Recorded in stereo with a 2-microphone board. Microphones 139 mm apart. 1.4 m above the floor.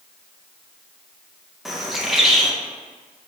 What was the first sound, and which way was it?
A bird, centre (ahead or behind).